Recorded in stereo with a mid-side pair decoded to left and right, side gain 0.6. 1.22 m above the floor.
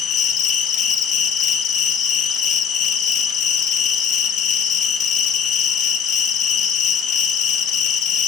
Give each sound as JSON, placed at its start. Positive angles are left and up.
{"t": 0.0, "sound": "an insect", "azimuth_deg": 60, "distance_m": 0.7}